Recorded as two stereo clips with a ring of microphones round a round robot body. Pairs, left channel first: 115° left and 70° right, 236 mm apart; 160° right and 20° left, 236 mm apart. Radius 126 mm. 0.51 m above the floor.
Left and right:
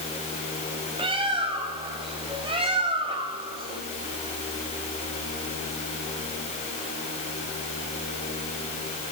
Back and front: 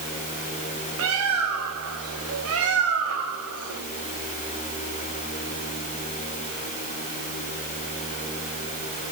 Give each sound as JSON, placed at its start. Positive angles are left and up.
{"t": 1.0, "sound": "a bird", "azimuth_deg": 0, "distance_m": 4.0}